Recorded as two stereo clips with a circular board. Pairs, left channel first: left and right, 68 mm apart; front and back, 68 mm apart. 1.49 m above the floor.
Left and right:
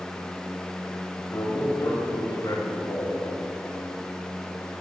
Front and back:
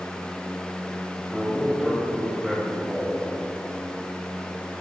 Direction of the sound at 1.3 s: 95° left.